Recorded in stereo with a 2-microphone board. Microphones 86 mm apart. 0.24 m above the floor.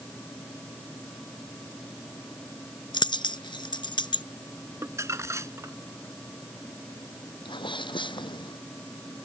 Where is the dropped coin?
75° left (ahead or behind).